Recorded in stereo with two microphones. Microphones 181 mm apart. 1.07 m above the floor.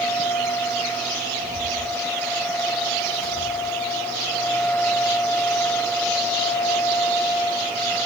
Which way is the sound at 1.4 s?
55° left (ahead or behind).